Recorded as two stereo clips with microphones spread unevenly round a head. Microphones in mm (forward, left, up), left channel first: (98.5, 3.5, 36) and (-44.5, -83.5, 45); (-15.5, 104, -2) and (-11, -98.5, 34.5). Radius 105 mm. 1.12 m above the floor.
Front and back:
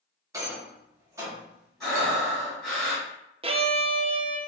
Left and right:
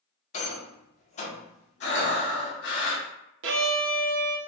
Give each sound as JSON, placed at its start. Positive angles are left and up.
{"t": 0.3, "sound": "a rattle", "azimuth_deg": 140, "distance_m": 1.0}
{"t": 1.8, "sound": "breathing", "azimuth_deg": 120, "distance_m": 1.3}
{"t": 3.4, "sound": "a violin", "azimuth_deg": -100, "distance_m": 0.6}